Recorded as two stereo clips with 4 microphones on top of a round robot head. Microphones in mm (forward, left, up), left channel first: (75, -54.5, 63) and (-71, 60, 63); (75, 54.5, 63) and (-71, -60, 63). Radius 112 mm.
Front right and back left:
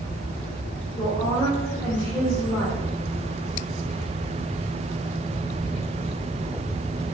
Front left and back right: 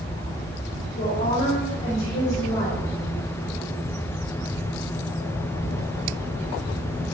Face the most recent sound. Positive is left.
turn(degrees=45)